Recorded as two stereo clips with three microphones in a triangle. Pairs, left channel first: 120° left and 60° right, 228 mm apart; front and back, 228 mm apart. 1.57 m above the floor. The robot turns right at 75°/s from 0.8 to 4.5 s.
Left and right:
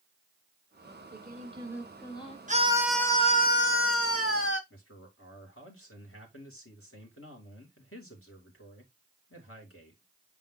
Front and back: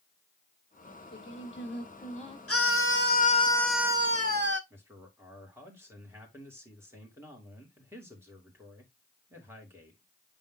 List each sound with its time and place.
0.8 s singing: 50° right, 1.5 m; by 2.4 s 65° left, 1.5 m
2.5 s a scream: 5° right, 1.3 m; by 4.6 s 150° left, 1.3 m
4.7 s a man speaking: 100° left, 3 m